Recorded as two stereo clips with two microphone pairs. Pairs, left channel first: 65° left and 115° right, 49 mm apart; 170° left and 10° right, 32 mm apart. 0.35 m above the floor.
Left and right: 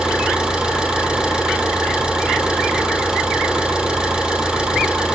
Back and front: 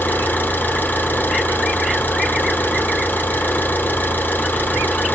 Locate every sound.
0.0 s an engine running: 170° left, 3 m